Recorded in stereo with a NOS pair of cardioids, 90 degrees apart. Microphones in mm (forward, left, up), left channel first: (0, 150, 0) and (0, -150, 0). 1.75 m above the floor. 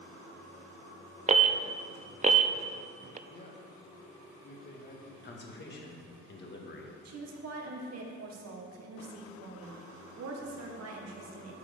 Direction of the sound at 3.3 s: 35° left.